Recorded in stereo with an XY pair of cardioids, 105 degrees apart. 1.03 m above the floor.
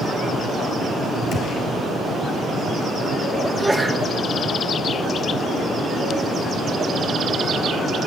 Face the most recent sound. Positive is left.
turn(degrees=0)